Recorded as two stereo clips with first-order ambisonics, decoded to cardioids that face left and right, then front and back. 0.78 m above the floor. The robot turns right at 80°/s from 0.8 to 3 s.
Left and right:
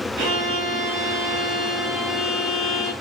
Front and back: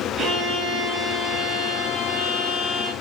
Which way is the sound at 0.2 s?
110° right.